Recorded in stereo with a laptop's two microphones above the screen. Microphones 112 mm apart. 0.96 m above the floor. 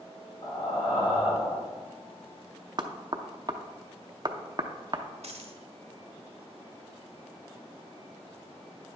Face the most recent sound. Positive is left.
turn(degrees=-65)  # may be behind; listen again after turning